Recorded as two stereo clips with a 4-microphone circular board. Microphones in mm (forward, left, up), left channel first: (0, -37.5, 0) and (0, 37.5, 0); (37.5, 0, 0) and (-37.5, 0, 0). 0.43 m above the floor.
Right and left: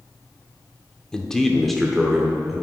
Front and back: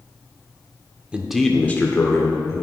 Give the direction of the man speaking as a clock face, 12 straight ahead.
5 o'clock.